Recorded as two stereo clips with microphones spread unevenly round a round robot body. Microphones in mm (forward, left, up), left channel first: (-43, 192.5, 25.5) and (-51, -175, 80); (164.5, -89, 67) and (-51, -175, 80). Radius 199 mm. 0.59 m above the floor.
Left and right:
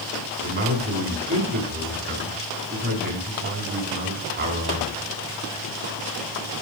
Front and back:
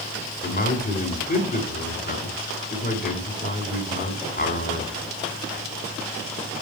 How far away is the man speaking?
About 5 m.